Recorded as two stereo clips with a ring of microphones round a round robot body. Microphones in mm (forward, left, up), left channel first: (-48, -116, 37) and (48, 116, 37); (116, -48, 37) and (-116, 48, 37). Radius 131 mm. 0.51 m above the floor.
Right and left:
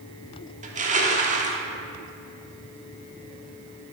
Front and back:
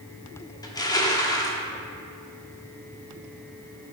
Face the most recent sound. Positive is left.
turn(degrees=40)